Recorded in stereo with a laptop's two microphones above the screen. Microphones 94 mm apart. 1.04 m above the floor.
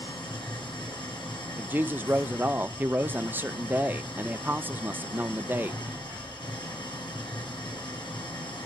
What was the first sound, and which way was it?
An engine running, 50° left (ahead or behind).